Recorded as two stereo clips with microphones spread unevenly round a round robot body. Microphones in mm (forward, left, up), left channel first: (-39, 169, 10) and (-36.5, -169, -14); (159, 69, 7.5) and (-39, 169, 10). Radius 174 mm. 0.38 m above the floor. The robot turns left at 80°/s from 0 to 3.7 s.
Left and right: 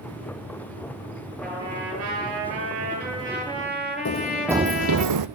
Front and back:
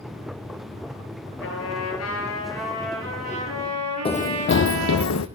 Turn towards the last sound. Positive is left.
turn(degrees=-55)